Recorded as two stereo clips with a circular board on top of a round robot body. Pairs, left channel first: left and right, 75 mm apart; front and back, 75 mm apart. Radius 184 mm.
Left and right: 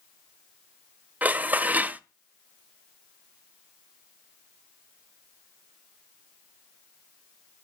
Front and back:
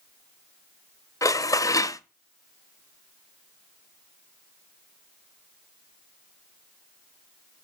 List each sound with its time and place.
1.2 s dishes clattering: 25° right, 0.7 m